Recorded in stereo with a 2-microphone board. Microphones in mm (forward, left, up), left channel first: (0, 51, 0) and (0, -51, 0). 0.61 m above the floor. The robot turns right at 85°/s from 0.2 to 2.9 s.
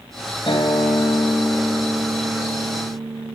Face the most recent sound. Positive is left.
turn(degrees=-105)